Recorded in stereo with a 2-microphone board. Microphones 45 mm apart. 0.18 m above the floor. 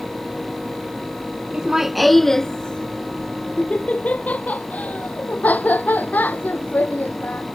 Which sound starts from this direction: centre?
Laughter, at 1.5 s.